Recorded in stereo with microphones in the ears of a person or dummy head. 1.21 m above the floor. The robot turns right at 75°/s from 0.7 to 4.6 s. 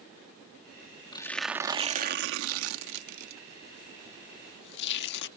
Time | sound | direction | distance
1.1 | tearing paper | 25° left (ahead or behind) | ?